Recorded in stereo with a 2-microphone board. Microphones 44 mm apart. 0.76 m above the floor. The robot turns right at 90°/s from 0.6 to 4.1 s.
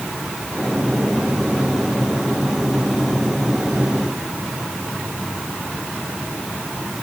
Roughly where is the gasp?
No gasp in this recording.